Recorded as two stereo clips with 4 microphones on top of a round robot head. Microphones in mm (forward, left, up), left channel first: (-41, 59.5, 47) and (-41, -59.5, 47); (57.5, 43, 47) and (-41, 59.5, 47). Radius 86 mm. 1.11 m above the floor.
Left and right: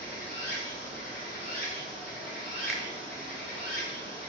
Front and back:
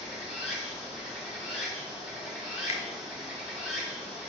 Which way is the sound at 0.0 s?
85° left.